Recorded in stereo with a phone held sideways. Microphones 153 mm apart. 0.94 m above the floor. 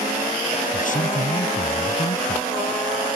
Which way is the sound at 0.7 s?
60° left (ahead or behind).